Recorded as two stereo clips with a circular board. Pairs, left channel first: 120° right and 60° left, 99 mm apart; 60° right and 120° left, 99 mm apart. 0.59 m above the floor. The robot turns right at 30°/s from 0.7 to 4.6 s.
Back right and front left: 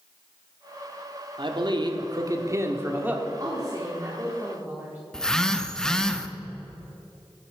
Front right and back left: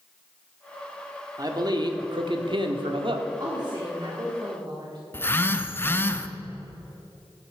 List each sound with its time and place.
1.4 s a man speaking: 75° left, 1.1 m; by 3.2 s 130° left, 1.1 m
3.4 s a woman speaking: 90° left, 1.6 m; by 5.0 s 125° left, 1.6 m
5.1 s a phone buzzing: 45° right, 0.6 m